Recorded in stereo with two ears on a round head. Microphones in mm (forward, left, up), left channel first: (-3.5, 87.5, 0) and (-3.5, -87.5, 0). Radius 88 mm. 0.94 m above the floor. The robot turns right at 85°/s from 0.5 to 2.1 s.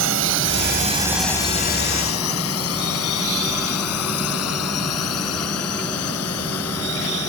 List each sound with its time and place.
0.0 s a drone: 65° right (ahead or behind); by 7.3 s 85° left